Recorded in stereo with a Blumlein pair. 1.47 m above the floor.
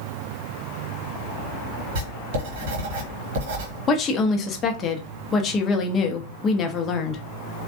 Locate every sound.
1.9 s writing: 50° right, 1.2 m
3.9 s a woman speaking: 25° left, 0.7 m